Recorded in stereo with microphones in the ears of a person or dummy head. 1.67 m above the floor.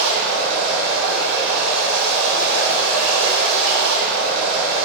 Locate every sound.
0.0 s running water: 70° right (ahead or behind), 1.8 m